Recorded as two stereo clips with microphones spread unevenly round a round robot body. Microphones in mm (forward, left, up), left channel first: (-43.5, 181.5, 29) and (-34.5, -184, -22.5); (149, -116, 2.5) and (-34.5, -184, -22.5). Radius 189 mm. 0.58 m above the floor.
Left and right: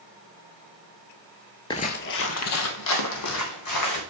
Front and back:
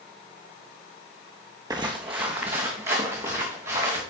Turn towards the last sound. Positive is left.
turn(degrees=130)